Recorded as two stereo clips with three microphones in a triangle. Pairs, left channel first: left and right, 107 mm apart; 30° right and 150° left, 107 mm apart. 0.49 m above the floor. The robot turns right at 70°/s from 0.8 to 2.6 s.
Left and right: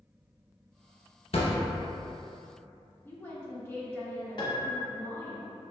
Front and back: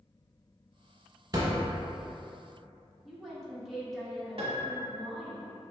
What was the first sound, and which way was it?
A thud, 100° left.